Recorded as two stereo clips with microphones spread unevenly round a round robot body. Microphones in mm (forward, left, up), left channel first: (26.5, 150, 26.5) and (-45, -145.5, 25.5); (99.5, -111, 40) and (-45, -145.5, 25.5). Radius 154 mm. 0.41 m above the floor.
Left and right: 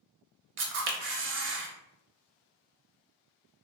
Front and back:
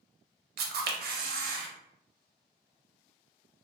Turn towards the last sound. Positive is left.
turn(degrees=-160)